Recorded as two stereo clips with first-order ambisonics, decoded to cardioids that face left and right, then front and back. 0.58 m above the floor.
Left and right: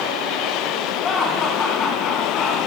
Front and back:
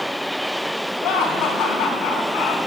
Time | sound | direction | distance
1.0 | laughter | 30° left | 4 m